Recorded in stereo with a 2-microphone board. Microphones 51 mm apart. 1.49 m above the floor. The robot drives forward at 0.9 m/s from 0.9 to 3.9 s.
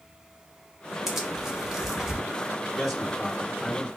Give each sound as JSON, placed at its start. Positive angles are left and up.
{"t": 1.1, "sound": "tearing paper", "side_deg": -5, "distance_m": 1.2}
{"t": 2.8, "sound": "a man speaking", "side_deg": 5, "distance_m": 2.5}